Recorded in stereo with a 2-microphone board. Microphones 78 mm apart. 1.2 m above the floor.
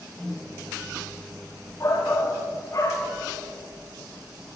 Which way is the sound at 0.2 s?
10° left (ahead or behind).